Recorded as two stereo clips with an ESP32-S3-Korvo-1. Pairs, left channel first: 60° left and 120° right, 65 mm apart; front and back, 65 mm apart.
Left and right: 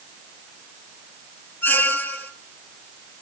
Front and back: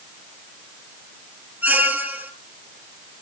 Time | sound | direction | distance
1.6 | a squeak | 120° left | 1.2 m